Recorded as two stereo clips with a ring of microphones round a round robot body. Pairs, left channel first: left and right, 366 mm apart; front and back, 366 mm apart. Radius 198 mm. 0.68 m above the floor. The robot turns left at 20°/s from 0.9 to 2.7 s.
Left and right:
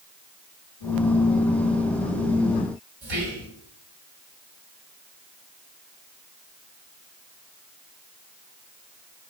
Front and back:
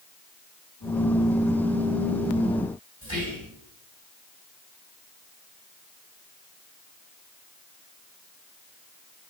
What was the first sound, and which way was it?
Whispering, 100° right.